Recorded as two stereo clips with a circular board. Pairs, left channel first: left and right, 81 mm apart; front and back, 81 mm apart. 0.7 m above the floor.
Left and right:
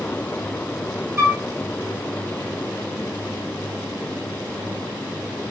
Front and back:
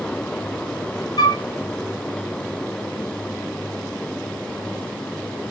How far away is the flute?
About 1.9 m.